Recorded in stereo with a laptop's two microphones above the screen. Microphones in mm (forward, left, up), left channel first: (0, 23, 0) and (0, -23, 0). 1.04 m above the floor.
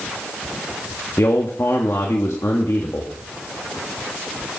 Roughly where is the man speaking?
Left.